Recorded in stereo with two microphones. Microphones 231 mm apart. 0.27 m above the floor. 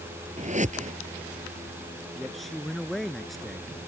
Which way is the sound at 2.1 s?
Centre (ahead or behind).